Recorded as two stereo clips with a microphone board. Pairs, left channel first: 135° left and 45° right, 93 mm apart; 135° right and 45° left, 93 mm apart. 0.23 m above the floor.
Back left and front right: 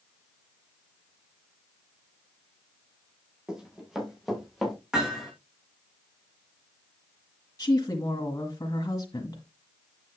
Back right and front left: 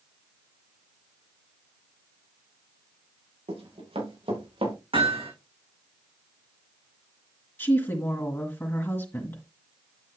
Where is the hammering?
35° left, 7 m.